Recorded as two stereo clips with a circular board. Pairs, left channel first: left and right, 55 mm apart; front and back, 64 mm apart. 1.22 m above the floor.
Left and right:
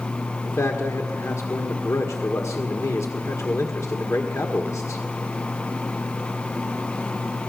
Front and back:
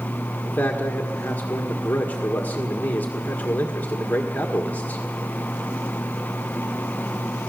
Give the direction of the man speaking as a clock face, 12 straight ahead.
10 o'clock.